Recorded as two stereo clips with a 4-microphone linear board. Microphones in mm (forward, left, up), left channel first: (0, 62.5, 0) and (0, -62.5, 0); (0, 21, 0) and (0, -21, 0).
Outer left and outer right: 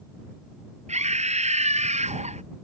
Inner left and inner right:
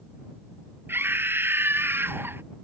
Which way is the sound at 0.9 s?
65° right (ahead or behind).